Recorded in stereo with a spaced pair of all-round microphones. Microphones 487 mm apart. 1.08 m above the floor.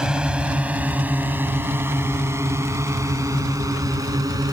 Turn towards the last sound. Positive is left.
turn(degrees=-5)  # may be behind; listen again after turning